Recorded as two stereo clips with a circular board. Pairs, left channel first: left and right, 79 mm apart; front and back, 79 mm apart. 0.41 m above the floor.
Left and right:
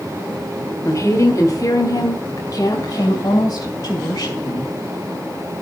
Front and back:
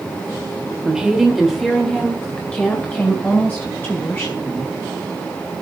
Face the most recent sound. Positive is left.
turn(degrees=60)